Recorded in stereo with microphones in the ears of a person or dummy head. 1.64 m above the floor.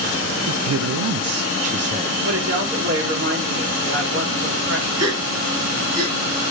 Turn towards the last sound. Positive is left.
turn(degrees=-85)